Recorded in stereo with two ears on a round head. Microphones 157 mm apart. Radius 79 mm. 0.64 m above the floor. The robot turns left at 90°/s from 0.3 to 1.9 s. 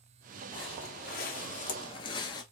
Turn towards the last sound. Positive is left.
turn(degrees=25)  # may be behind; listen again after turning